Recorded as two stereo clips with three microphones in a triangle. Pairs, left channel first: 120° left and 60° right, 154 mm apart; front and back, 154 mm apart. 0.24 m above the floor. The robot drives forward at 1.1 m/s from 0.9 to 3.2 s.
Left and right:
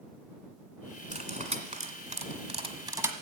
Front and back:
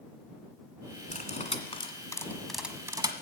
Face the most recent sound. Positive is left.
turn(degrees=-130)